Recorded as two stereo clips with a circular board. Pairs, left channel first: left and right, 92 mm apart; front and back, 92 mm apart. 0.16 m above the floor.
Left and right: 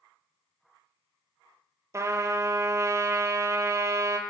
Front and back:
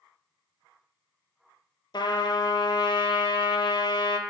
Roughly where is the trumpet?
Ahead right.